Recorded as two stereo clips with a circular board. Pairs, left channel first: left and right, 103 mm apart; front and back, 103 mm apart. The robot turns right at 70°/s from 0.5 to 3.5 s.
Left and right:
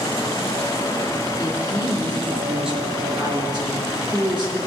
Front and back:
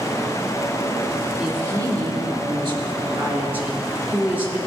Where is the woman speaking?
100° left, 2.5 m; by 4.6 s 110° right, 2.5 m.